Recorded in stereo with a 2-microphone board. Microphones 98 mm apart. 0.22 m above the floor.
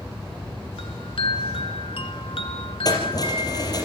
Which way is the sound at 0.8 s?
65° left (ahead or behind).